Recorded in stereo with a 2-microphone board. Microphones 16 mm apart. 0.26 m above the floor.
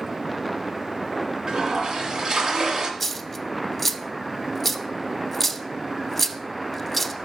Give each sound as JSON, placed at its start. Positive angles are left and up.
{"t": 1.5, "sound": "a toilet flushing", "side_deg": -50, "distance_m": 1.9}
{"t": 3.0, "sound": "a dropped coin", "side_deg": 10, "distance_m": 0.7}